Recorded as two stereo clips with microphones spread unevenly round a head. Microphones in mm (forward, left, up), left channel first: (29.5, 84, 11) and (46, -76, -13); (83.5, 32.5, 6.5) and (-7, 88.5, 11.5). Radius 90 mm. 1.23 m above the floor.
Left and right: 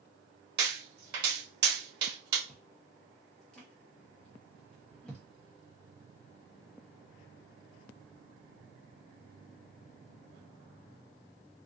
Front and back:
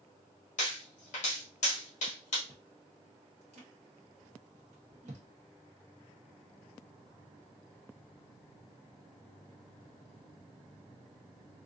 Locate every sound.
0.6 s a pop: 65° right, 1.8 m
2.5 s chewing: straight behind, 0.9 m